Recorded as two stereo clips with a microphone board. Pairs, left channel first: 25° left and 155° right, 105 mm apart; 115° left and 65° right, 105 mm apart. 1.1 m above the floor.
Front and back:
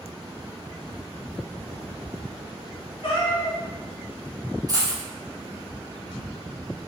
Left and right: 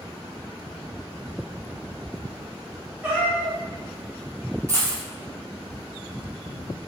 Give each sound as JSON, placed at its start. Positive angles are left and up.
{"t": 3.0, "sound": "a cat meowing", "azimuth_deg": 5, "distance_m": 1.5}
{"t": 4.7, "sound": "a dropped coin", "azimuth_deg": -115, "distance_m": 0.8}